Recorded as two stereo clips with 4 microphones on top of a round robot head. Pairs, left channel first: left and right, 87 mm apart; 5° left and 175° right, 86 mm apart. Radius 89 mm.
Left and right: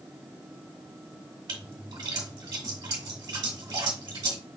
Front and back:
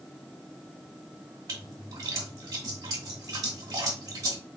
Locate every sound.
1.5 s a splash: 130° right, 2 m